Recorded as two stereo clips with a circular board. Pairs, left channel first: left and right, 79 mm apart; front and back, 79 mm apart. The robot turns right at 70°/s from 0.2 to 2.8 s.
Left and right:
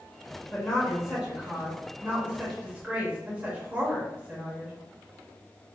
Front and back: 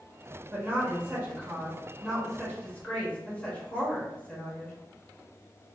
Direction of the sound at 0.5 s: 150° left.